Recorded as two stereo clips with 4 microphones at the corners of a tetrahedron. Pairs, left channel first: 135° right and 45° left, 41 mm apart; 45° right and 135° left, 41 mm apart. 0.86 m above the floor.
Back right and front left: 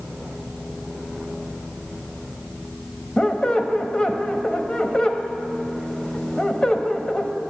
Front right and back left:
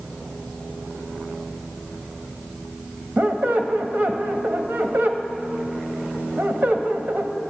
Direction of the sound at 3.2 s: 165° left.